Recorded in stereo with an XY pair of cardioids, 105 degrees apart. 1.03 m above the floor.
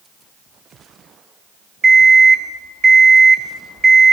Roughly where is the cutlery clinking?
No cutlery clinking in this recording.